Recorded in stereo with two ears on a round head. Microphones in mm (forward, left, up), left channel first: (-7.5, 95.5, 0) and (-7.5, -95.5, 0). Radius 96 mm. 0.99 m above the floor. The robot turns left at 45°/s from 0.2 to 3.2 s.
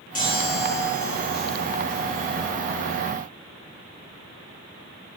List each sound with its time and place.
0.1 s a chime: 140° left, 6.5 m; by 2.5 s 35° left, 6.5 m